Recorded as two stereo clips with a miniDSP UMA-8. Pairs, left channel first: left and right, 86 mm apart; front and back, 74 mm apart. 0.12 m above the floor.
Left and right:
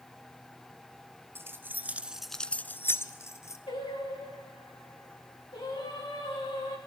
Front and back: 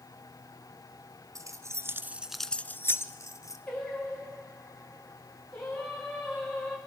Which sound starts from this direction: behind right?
Keys jangling, at 1.4 s.